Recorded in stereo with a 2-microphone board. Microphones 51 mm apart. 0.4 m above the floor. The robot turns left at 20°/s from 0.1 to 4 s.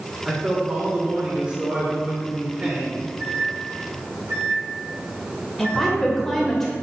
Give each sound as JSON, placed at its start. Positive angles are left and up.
{"t": 0.2, "sound": "a man speaking", "side_deg": -10, "distance_m": 1.4}
{"t": 3.2, "sound": "a microwave", "side_deg": -50, "distance_m": 2.5}
{"t": 5.6, "sound": "a woman speaking", "side_deg": 10, "distance_m": 1.6}